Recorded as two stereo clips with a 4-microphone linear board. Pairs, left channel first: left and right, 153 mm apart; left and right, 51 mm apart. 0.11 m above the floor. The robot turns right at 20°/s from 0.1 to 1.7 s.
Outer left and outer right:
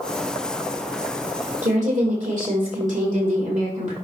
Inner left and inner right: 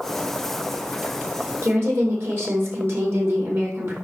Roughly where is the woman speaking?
Right.